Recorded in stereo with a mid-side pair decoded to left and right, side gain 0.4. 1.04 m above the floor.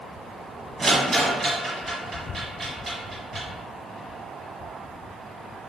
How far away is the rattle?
About 1.4 m.